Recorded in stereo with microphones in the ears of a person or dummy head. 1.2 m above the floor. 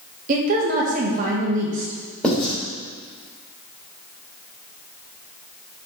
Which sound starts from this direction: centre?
Writing, at 2.2 s.